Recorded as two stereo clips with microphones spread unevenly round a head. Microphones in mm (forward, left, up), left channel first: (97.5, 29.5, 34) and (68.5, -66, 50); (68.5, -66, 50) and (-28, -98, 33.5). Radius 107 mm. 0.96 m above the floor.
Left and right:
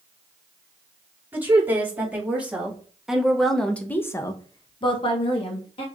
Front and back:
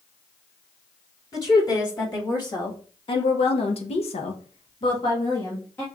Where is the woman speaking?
35° right, 2.5 m; by 5.9 s 100° left, 1.3 m.